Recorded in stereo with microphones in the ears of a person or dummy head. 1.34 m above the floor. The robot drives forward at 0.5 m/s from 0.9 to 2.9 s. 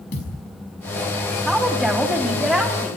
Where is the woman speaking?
5° right (ahead or behind), 3 m; by 2.9 s centre (ahead or behind), 4 m.